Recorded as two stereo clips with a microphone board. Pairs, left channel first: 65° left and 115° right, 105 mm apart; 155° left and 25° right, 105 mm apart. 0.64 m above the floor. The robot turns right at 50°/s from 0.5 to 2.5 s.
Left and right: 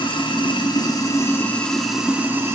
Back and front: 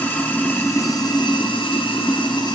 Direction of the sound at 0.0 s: 90° left.